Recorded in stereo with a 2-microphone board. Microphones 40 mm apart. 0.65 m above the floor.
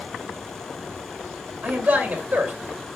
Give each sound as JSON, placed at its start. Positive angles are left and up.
{"t": 1.6, "sound": "a man speaking", "side_deg": -50, "distance_m": 2.5}